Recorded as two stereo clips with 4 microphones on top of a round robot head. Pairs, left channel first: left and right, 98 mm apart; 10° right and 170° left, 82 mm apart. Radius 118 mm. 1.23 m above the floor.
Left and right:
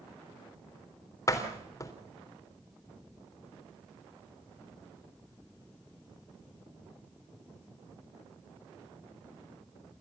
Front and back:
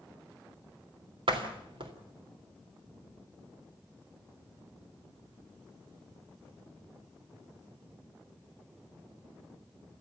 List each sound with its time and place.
1.3 s a door slam: 150° left, 3.5 m